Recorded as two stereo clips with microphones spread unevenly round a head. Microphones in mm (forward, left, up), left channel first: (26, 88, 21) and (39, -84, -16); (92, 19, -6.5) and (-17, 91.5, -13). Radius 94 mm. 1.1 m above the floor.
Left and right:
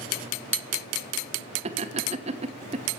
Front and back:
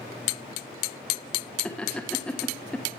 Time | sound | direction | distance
1.6 | laughter | 120° right | 1.0 m